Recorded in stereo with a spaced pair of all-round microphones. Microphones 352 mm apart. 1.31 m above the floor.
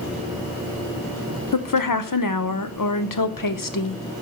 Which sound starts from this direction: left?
A woman speaking, at 1.5 s.